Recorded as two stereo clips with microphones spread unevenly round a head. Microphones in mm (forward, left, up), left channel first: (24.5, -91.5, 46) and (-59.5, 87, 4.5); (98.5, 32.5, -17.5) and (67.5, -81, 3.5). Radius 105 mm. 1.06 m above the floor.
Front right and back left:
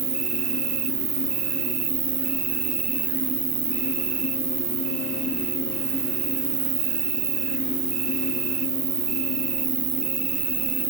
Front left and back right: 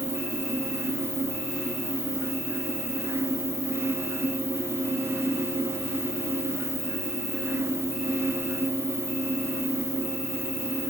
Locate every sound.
0.0 s an insect: 155° left, 0.9 m